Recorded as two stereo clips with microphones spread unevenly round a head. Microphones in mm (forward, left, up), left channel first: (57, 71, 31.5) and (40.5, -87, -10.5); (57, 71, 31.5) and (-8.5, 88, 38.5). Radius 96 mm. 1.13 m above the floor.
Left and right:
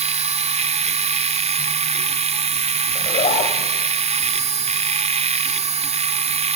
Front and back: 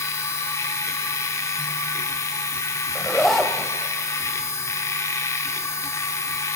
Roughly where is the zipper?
Left.